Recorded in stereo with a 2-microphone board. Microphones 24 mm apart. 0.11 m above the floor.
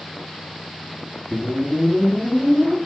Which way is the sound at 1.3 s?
80° right.